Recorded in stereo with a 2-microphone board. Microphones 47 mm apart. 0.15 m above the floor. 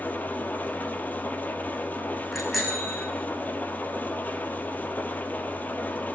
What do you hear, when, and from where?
0.0 s an engine running: 35° left (ahead or behind), 2.5 m
2.3 s a bicycle bell: centre (ahead or behind), 7 m